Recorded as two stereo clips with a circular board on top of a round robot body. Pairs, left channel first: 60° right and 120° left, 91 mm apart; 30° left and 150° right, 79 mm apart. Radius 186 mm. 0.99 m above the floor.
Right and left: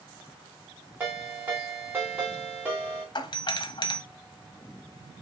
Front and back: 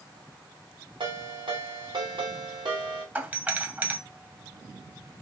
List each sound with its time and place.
1.0 s a ringtone: 170° right, 1.6 m
3.1 s a doorbell: 85° right, 0.9 m